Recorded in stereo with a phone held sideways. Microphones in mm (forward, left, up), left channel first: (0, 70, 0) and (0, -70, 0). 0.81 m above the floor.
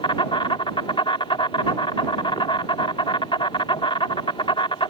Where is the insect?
40° left (ahead or behind).